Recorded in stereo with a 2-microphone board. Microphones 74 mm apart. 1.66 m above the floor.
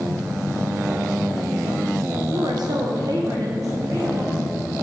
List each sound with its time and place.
2.3 s a woman speaking: 80° right, 1.3 m; by 4.4 s 45° right (ahead or behind), 2.5 m